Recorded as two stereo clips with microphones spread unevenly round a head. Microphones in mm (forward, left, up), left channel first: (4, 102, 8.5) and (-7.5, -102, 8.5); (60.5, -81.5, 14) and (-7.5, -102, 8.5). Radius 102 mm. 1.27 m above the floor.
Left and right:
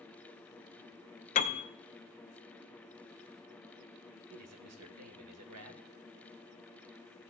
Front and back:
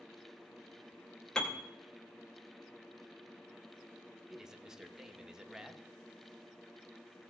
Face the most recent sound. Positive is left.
turn(degrees=-80)